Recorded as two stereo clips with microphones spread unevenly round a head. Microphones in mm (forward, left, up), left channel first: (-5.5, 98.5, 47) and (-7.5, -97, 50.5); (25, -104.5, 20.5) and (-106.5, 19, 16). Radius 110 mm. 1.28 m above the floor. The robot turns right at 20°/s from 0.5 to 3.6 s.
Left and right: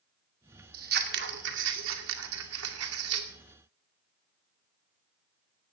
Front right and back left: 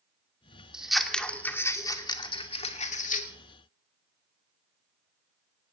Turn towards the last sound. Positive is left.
turn(degrees=-80)